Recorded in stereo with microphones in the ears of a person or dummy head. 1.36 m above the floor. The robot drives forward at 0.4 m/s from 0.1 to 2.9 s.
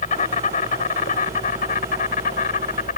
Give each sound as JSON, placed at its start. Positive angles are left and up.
{"t": 0.0, "sound": "an insect", "side_deg": 45}